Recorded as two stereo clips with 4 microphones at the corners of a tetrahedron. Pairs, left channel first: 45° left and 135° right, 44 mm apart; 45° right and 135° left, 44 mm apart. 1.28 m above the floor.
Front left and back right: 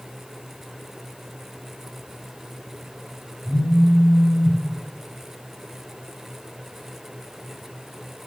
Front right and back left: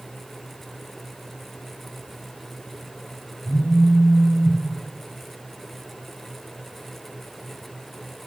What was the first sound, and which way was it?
A phone buzzing, 85° right.